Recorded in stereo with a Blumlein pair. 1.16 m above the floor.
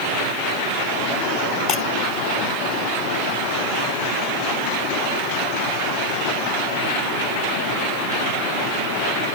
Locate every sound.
1.7 s breaking glass: 35° left